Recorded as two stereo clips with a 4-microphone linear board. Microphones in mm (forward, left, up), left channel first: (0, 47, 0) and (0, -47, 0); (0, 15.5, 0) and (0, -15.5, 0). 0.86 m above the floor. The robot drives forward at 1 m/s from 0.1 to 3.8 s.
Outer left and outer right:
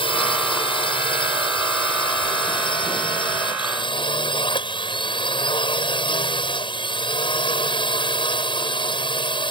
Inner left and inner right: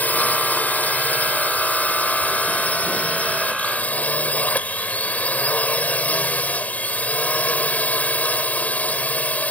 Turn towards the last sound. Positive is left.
turn(degrees=60)  # may be behind; listen again after turning